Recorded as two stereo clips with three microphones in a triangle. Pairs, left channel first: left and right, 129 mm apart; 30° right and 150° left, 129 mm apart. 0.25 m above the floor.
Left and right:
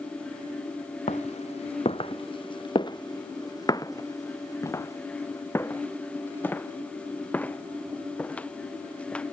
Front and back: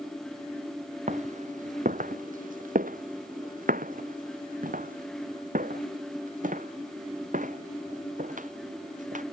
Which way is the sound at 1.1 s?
120° left.